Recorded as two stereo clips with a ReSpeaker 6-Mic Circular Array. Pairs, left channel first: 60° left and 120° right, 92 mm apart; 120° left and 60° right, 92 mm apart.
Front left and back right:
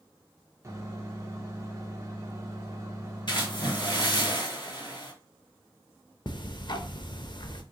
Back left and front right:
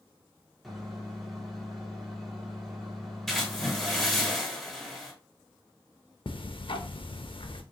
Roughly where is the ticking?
Left.